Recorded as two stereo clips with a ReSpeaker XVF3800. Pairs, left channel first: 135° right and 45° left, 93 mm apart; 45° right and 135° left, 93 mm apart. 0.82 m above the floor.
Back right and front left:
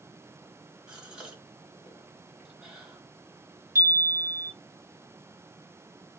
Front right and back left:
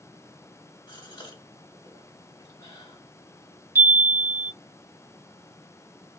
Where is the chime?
80° left, 0.6 m.